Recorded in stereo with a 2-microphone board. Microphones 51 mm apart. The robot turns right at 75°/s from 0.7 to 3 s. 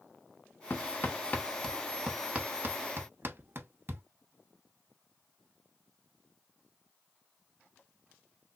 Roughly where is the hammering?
Left.